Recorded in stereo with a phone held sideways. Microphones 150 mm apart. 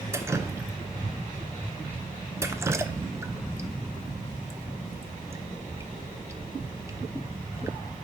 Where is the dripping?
20° right (ahead or behind), 0.7 m.